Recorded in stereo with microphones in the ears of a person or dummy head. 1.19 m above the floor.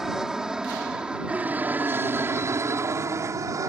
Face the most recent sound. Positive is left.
turn(degrees=-15)  # may be behind; listen again after turning